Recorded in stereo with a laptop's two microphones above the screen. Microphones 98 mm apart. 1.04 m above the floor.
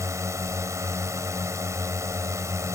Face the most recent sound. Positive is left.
turn(degrees=-30)  # may be behind; listen again after turning